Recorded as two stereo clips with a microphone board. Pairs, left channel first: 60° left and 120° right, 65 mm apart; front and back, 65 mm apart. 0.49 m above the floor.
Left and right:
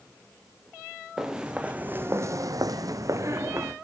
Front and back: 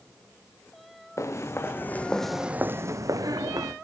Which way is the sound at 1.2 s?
40° right.